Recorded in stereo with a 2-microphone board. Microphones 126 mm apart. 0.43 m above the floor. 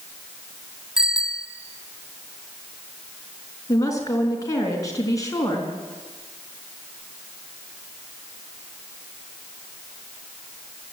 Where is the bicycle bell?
5° right (ahead or behind), 2 m.